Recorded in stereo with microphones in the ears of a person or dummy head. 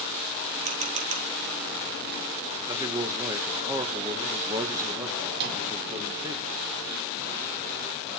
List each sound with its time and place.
0.7 s a camera shutter: 40° right (ahead or behind), 0.9 m
2.7 s a man speaking: 15° right (ahead or behind), 1.2 m
5.3 s a microwave: 55° right (ahead or behind), 2 m